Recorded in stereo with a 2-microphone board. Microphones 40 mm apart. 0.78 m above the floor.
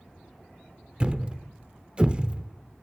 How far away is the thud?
About 0.5 m.